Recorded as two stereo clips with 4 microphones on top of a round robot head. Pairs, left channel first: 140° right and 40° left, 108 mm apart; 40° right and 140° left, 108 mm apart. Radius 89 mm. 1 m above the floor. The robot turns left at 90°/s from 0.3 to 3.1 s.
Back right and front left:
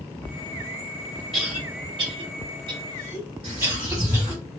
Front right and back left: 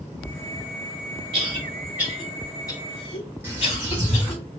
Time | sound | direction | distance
1.3 | a cough | 130° left | 1.7 m
3.4 | a bird | 70° left | 0.9 m